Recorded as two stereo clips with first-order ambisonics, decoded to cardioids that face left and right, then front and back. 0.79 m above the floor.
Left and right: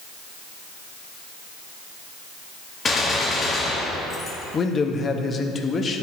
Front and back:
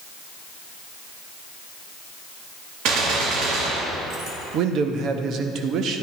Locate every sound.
2.9 s a gunshot: 160° left, 1.5 m
4.5 s a man speaking: 150° left, 0.7 m